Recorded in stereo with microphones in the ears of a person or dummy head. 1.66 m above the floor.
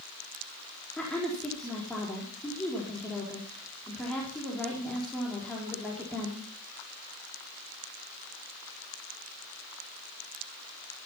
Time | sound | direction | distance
1.0 | a woman speaking | centre (ahead or behind) | 4.5 m